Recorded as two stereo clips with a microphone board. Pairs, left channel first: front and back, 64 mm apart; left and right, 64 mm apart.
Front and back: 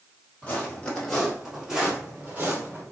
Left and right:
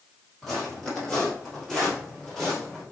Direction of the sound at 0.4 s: 15° left.